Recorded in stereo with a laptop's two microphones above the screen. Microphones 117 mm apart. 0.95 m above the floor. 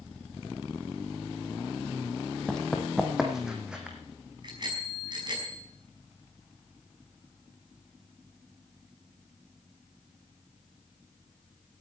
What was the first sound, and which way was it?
Running footsteps, 5° left (ahead or behind).